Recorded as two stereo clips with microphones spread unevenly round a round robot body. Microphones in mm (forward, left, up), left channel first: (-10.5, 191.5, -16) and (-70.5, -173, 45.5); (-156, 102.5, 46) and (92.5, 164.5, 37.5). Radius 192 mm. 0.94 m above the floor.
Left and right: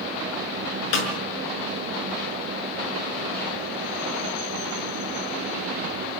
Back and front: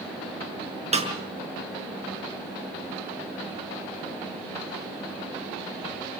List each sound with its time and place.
0.9 s a snare drum: 80° left, 6 m